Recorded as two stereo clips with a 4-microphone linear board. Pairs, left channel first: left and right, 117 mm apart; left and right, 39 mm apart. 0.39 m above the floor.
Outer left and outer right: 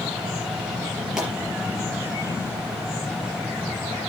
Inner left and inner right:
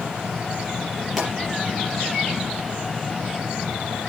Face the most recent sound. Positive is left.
turn(degrees=-5)  # may be behind; listen again after turning